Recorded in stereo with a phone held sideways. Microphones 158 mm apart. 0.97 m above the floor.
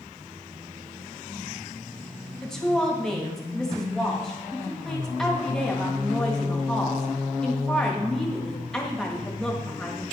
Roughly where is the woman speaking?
Centre.